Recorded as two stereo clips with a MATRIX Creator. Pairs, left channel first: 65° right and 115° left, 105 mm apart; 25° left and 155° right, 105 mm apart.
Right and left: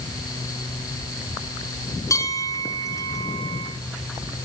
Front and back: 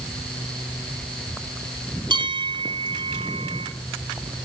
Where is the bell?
125° right, 1.6 m.